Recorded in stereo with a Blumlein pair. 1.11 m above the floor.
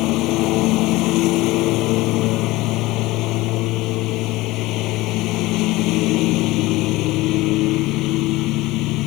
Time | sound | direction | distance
0.0 | a lawn mower | 40° left | ?